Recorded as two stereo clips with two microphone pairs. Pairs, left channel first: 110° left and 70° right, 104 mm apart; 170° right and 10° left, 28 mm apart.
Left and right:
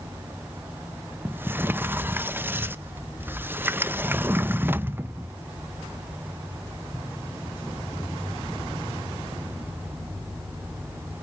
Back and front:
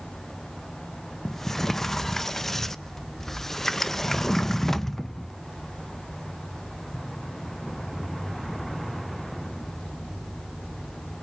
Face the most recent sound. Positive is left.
turn(degrees=-105)